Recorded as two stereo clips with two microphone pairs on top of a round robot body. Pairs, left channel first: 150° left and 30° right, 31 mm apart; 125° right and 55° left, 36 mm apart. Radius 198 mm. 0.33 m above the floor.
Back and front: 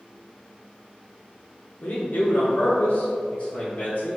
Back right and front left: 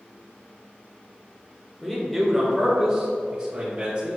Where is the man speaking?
145° left, 1.6 m; by 4.2 s 120° left, 3 m.